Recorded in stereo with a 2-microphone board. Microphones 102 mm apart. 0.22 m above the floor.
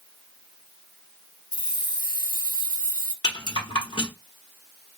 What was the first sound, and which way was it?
Keys jangling, 45° left (ahead or behind).